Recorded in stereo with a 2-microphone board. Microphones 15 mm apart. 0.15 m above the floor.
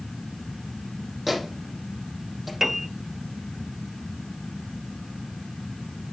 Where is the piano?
20° right (ahead or behind), 1.4 m.